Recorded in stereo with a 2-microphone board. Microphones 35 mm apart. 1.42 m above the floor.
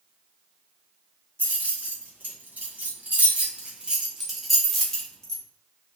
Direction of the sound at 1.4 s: 80° right.